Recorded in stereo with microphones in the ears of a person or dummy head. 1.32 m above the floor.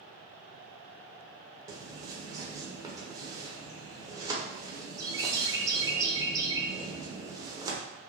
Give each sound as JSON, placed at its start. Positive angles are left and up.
{"t": 1.7, "sound": "a bird", "side_deg": -20, "distance_m": 0.6}